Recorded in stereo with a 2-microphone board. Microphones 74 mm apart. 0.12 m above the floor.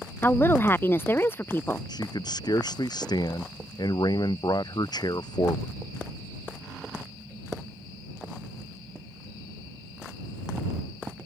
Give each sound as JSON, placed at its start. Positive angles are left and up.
{"t": 0.2, "sound": "a woman speaking", "side_deg": 30}
{"t": 1.9, "sound": "a man speaking", "side_deg": 60}